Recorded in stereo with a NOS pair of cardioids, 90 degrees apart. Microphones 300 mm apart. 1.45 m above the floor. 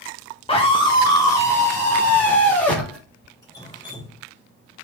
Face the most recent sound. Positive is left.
turn(degrees=10)